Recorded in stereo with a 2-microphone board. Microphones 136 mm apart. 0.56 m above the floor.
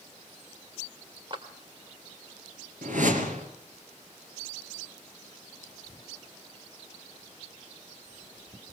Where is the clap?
40° right (ahead or behind), 1.7 m.